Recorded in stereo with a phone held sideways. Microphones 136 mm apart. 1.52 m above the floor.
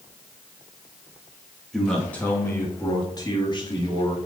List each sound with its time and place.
1.7 s a man speaking: centre (ahead or behind), 3 m; by 4.2 s 40° left (ahead or behind), 4 m